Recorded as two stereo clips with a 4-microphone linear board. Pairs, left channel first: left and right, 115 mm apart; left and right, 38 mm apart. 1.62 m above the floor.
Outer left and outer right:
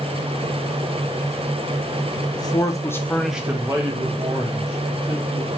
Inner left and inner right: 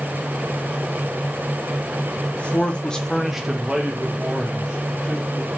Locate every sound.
2.3 s a man speaking: 35° left (ahead or behind), 0.9 m; by 5.5 s 40° right (ahead or behind), 2.0 m